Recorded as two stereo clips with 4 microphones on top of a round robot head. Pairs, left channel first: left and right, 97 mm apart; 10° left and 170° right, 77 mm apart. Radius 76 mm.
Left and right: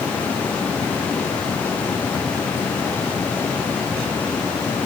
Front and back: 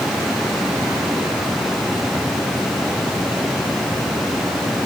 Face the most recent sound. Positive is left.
No sound to turn to.